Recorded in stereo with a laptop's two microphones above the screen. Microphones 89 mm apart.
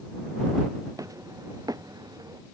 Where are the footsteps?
40° right (ahead or behind); by 2.4 s 50° right (ahead or behind).